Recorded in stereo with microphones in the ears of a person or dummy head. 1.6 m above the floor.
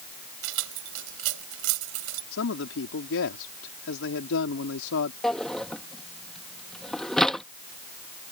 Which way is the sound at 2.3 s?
80° left.